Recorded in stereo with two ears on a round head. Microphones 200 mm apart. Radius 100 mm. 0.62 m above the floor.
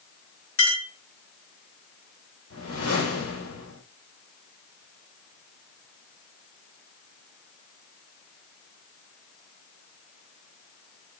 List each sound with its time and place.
0.6 s a clink: 60° left (ahead or behind), 4 m
2.5 s a whoosh: 65° left (ahead or behind), 4 m